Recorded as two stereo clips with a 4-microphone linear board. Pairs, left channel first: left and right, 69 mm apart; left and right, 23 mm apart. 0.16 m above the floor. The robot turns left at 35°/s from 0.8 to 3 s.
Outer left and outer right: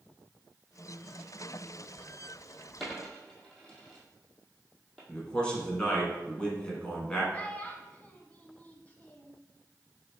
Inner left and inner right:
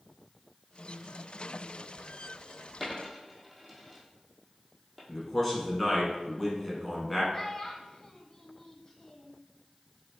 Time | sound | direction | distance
2.8 | a dropped coin | centre (ahead or behind) | 1.5 m
5.1 | a man speaking | 15° left (ahead or behind) | 1.2 m
7.3 | a child speaking | 20° left (ahead or behind) | 0.6 m